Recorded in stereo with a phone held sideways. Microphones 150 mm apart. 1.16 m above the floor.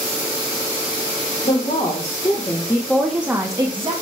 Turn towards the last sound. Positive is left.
turn(degrees=-40)  # may be behind; listen again after turning